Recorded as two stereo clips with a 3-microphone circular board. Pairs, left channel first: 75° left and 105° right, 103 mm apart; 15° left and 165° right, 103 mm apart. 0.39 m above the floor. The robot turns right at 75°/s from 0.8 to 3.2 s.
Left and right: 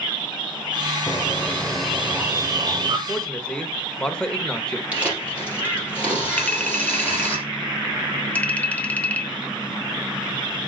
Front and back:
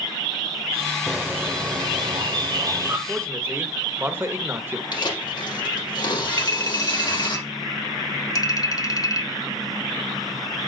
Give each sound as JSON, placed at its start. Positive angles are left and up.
{"t": 1.1, "sound": "a bird", "azimuth_deg": 105, "distance_m": 0.9}
{"t": 3.1, "sound": "a man speaking", "azimuth_deg": 135, "distance_m": 1.1}
{"t": 4.9, "sound": "tearing paper", "azimuth_deg": -30, "distance_m": 3.5}
{"t": 6.4, "sound": "a clink", "azimuth_deg": 10, "distance_m": 0.9}